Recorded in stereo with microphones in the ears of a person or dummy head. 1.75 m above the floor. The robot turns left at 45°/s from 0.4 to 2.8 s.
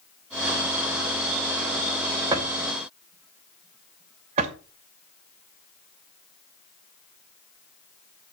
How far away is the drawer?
About 2 m.